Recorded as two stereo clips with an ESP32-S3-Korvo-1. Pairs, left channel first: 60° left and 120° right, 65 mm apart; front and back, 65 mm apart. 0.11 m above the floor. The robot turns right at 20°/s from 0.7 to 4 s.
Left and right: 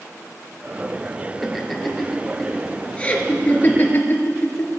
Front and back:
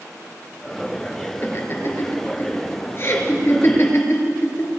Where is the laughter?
30° right, 2 m; by 4.7 s 20° left, 2 m.